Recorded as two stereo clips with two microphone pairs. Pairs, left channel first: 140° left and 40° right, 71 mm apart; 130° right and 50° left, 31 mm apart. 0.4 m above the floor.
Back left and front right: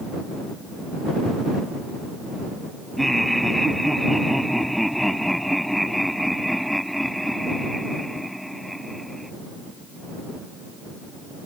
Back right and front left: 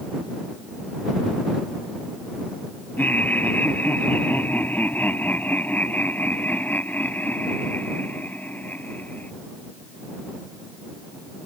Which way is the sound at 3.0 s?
135° right.